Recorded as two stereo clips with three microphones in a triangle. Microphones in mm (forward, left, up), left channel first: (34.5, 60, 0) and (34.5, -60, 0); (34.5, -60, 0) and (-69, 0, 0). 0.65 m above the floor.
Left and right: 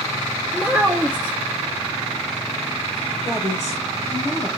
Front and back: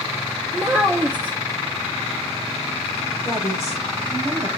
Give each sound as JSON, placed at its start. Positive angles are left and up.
{"t": 0.5, "sound": "a child speaking", "azimuth_deg": -150, "distance_m": 0.7}
{"t": 3.2, "sound": "a woman speaking", "azimuth_deg": 95, "distance_m": 3.5}